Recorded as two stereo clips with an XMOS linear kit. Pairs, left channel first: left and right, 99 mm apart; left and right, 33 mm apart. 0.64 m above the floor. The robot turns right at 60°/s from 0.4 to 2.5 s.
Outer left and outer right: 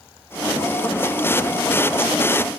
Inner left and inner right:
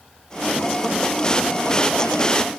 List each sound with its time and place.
Only background noise.